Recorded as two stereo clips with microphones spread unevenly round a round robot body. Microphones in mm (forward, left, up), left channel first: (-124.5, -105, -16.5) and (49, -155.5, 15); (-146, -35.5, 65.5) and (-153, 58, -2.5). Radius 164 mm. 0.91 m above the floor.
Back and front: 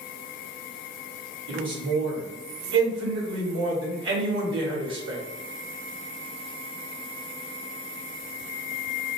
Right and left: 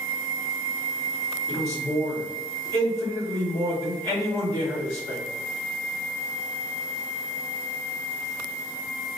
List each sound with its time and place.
1.5 s a man speaking: 10° right, 1.4 m